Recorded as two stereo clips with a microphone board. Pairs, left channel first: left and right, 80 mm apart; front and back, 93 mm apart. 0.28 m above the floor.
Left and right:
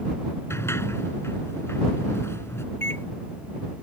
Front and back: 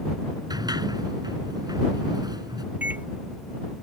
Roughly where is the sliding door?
Behind left.